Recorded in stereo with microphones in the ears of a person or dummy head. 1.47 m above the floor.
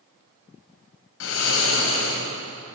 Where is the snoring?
70° left (ahead or behind), 3.5 m.